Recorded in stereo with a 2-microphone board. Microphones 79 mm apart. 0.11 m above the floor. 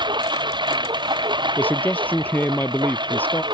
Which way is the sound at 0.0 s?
75° right (ahead or behind).